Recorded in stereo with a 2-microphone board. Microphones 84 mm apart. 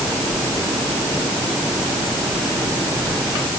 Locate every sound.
Only background noise.